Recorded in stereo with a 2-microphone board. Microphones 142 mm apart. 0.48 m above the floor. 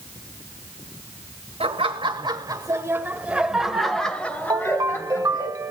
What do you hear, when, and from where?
1.6 s laughter: 45° right (ahead or behind), 2 m; by 5.5 s 25° left (ahead or behind), 3 m
4.5 s a ringtone: 25° right (ahead or behind), 0.9 m